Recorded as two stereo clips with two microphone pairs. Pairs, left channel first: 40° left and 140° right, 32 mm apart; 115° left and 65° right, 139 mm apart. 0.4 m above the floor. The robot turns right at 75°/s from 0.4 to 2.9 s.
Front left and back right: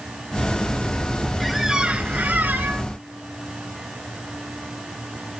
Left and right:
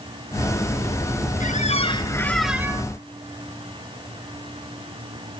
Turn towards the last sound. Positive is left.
turn(degrees=-120)